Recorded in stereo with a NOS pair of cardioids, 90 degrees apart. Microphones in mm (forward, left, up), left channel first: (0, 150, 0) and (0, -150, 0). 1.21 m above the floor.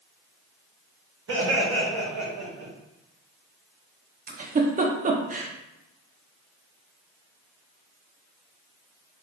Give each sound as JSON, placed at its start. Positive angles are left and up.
{"t": 1.3, "sound": "laughter", "azimuth_deg": -45, "distance_m": 1.1}
{"t": 4.3, "sound": "a giggle", "azimuth_deg": -30, "distance_m": 0.6}